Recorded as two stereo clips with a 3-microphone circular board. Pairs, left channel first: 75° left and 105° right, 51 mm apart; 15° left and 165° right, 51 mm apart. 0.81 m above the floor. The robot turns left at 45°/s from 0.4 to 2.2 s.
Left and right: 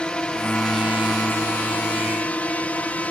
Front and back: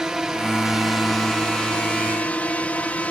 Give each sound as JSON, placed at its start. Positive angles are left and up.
{"t": 0.0, "sound": "a drone", "azimuth_deg": 125}